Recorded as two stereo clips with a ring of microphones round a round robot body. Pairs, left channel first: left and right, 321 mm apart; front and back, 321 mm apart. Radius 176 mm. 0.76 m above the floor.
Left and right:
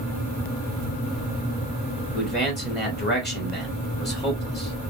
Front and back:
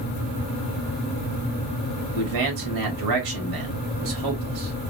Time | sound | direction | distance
2.1 | a man speaking | 150° left | 2 m